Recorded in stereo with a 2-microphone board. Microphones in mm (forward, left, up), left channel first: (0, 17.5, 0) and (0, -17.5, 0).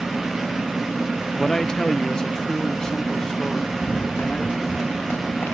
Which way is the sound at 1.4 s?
15° left (ahead or behind).